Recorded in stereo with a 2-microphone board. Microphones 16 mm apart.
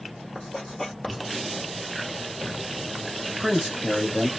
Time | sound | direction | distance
0.3 | writing | 25° left (ahead or behind) | 1.2 m
3.3 | a man speaking | 15° right (ahead or behind) | 1.3 m